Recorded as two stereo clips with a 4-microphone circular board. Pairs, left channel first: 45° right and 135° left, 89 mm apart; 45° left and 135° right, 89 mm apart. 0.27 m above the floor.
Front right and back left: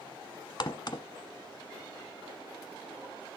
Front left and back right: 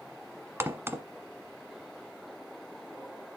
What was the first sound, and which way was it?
A crack, 75° right.